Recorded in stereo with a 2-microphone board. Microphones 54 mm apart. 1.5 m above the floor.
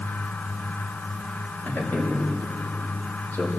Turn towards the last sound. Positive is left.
turn(degrees=35)  # may be behind; listen again after turning